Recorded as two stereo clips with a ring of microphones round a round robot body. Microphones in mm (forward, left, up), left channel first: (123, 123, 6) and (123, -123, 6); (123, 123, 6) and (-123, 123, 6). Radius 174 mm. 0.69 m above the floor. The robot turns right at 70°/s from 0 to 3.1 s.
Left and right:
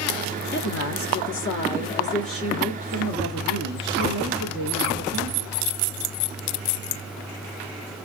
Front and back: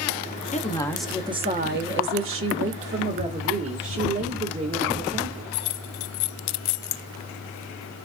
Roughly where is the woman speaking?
Ahead left.